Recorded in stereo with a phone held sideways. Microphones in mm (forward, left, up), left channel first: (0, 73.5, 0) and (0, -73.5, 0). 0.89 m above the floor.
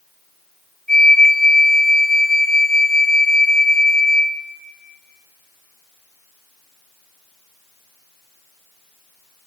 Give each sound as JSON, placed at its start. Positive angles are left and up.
{"t": 0.9, "sound": "a flute", "side_deg": -75, "distance_m": 1.8}